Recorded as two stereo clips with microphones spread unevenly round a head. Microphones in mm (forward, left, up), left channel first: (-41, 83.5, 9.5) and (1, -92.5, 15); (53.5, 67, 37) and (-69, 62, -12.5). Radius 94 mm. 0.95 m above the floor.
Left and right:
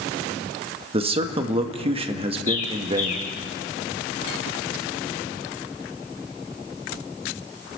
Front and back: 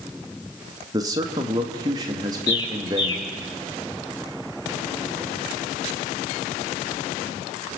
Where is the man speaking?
130° right, 1.6 m.